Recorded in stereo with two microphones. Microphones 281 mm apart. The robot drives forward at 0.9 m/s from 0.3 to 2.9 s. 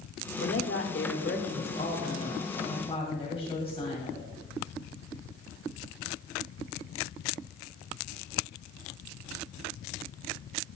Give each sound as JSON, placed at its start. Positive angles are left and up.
{"t": 0.4, "sound": "a woman speaking", "side_deg": 50, "distance_m": 1.1}